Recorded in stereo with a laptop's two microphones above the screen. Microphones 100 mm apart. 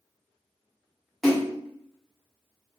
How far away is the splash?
About 1.2 m.